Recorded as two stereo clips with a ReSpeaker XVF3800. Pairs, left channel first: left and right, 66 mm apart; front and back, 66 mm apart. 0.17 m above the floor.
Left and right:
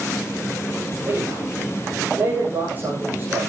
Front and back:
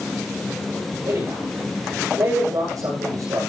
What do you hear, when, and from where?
1.1 s a man speaking: 150° right, 8 m